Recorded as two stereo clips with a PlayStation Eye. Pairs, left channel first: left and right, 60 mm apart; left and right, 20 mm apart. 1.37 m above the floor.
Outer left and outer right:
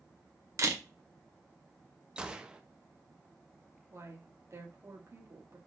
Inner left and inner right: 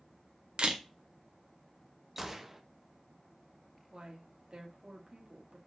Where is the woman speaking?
50° right (ahead or behind), 3 m.